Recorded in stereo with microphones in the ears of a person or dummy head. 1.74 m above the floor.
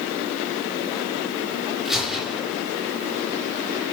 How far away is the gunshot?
About 5.5 m.